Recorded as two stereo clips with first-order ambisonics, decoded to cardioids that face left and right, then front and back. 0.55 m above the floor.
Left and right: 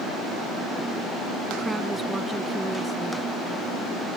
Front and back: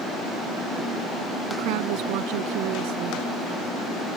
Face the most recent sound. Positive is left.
turn(degrees=-175)